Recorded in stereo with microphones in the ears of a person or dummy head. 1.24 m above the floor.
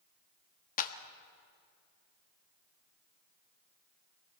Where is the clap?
50° left (ahead or behind), 1.2 m.